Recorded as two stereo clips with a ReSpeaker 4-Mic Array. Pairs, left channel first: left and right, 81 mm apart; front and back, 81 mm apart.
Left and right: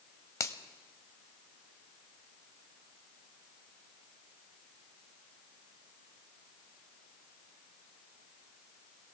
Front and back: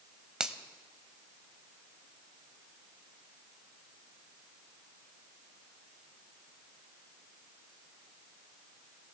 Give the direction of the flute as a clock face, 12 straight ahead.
No flute in this recording.